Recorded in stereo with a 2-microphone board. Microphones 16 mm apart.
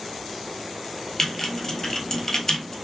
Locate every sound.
1.2 s typing on a keyboard: 30° left (ahead or behind), 1.2 m